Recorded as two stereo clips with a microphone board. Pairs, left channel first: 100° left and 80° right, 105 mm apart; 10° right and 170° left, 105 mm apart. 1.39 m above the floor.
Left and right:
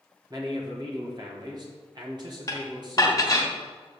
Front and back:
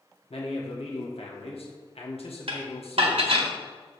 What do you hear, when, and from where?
0.3 s a man speaking: 30° right, 1.6 m
2.5 s dishes clattering: 155° left, 1.3 m